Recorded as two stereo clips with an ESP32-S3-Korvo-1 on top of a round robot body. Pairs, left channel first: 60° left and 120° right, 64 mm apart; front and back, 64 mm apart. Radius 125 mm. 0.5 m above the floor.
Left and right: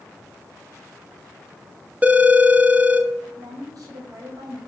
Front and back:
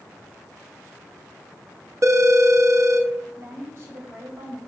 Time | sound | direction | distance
2.0 | a phone ringing | straight behind | 1.1 m
3.4 | a woman speaking | 130° right | 2.5 m